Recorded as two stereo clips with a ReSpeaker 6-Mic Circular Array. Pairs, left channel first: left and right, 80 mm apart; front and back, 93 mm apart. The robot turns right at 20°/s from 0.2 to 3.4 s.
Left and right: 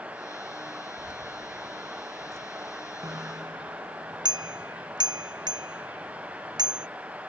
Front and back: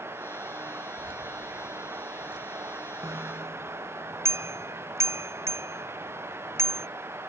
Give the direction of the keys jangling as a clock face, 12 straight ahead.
6 o'clock.